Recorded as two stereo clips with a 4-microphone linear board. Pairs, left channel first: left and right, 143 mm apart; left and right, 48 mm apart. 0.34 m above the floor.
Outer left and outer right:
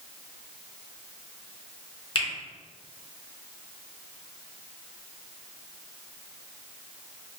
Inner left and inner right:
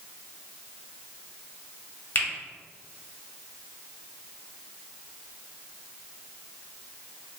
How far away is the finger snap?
About 1.0 m.